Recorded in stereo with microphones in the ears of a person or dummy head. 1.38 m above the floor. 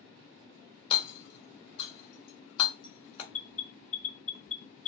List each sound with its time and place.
0.9 s hammering: 40° left (ahead or behind), 2 m
3.3 s an alarm: 70° left (ahead or behind), 2.5 m